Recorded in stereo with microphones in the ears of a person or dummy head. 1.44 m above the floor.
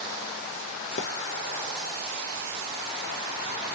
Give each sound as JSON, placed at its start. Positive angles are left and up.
{"t": 1.0, "sound": "a splash", "side_deg": 50, "distance_m": 0.5}